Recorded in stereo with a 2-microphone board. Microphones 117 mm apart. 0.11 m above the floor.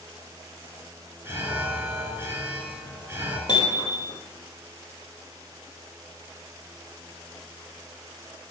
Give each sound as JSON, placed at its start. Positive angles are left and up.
{"t": 1.2, "sound": "an alarm", "side_deg": -25, "distance_m": 2.5}
{"t": 3.5, "sound": "hammering", "side_deg": 40, "distance_m": 2.5}